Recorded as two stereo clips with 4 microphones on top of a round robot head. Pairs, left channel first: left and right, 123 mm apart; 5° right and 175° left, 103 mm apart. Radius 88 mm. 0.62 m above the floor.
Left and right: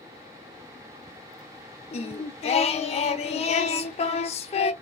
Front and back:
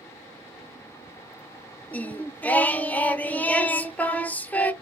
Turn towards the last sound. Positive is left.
turn(degrees=65)